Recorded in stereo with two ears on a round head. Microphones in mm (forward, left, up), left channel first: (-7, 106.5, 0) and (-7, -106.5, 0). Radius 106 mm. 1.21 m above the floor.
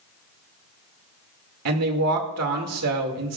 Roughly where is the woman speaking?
Right.